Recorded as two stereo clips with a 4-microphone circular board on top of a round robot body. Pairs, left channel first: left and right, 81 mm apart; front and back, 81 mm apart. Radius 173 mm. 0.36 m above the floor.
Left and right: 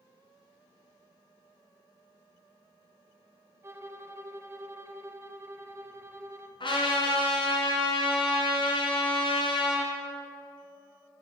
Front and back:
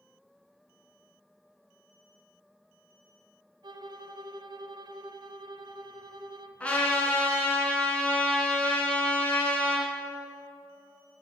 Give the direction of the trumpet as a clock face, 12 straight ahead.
10 o'clock.